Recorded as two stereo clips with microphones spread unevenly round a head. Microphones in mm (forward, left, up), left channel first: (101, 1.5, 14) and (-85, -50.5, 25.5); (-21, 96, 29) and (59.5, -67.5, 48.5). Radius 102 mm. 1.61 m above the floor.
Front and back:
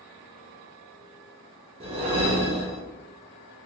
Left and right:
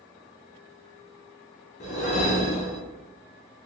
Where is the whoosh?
160° left, 0.5 m.